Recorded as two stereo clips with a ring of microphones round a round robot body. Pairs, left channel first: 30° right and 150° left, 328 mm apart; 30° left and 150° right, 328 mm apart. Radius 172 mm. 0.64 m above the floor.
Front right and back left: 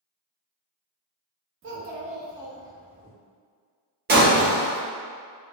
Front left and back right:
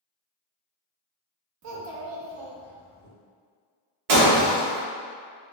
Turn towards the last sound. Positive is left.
turn(degrees=-145)